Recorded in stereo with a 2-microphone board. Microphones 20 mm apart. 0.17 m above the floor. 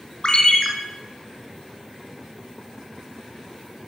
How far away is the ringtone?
About 1.5 m.